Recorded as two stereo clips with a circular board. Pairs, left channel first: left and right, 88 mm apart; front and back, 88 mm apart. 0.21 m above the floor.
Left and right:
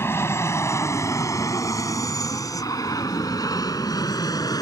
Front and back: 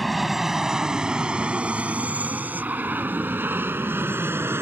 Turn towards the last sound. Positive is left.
turn(degrees=120)